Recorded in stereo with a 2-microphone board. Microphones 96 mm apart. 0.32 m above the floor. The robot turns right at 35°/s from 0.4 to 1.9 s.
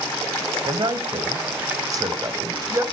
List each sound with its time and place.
0.6 s a man speaking: 50° right (ahead or behind), 1.4 m; by 2.8 s 35° right (ahead or behind), 1.4 m